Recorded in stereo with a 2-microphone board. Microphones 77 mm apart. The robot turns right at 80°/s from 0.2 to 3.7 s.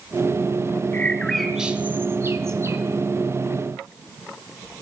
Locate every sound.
0.9 s a bird: 20° left (ahead or behind), 1.8 m; by 2.8 s 35° right (ahead or behind), 1.8 m